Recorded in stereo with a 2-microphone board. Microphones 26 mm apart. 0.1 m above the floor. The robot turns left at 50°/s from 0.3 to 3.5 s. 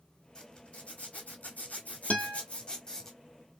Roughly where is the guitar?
Left.